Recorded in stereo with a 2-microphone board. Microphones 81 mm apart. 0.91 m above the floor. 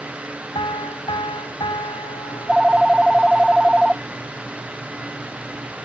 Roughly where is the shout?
I don't hear a shout.